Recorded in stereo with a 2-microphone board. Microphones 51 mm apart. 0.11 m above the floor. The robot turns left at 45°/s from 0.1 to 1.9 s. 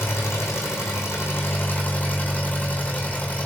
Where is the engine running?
120° left, 2.5 m; by 3.5 s 40° left, 2.5 m.